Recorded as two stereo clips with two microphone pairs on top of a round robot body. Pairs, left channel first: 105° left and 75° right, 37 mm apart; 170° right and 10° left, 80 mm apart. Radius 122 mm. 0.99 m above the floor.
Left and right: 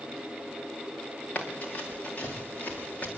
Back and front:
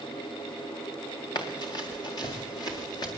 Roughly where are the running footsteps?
Behind left.